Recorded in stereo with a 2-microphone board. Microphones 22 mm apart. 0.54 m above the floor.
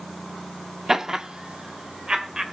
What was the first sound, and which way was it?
Laughter, 20° right (ahead or behind).